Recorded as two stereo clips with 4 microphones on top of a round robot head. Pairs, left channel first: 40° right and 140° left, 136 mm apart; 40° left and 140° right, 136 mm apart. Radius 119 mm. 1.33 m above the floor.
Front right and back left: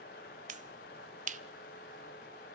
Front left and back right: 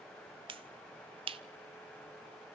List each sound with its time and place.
0.5 s a finger snap: 170° left, 0.9 m